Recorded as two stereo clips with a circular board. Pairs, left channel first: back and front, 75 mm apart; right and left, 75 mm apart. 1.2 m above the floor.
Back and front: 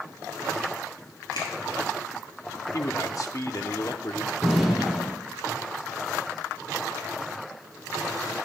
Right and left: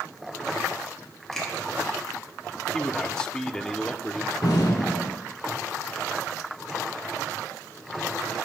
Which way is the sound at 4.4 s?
90° right.